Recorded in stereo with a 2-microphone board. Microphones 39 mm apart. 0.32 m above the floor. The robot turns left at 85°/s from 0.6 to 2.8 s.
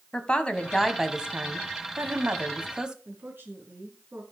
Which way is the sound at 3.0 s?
70° right (ahead or behind).